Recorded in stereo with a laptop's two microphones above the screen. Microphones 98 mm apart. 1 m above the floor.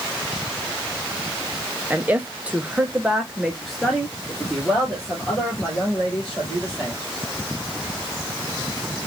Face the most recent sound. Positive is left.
turn(degrees=10)  # may be behind; listen again after turning